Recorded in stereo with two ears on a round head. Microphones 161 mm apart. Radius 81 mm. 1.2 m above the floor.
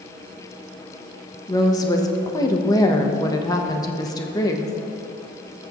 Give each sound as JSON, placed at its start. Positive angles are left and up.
{"t": 1.5, "sound": "a woman speaking", "side_deg": 20, "distance_m": 0.9}